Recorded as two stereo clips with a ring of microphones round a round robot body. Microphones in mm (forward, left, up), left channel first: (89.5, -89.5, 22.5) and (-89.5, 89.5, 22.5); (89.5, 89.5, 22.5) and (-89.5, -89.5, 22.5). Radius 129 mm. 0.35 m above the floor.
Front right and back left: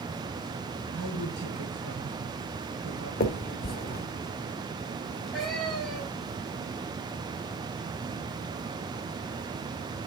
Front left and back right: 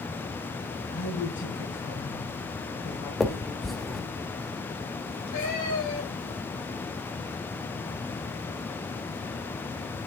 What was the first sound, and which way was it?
A woman speaking, 90° left.